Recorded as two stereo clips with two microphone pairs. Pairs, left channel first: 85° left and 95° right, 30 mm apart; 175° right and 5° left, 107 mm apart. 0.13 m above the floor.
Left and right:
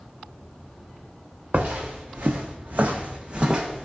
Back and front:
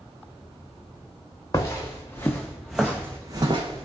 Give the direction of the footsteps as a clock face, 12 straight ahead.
4 o'clock.